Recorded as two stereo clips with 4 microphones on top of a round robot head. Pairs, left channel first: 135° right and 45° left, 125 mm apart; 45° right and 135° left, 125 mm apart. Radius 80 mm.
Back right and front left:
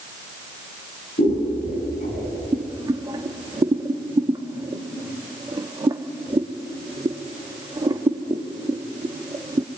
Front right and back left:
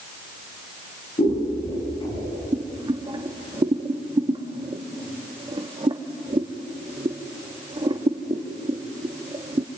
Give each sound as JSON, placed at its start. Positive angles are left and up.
{"t": 1.2, "sound": "scissors", "azimuth_deg": -100, "distance_m": 5.5}
{"t": 2.5, "sound": "boiling", "azimuth_deg": 95, "distance_m": 1.5}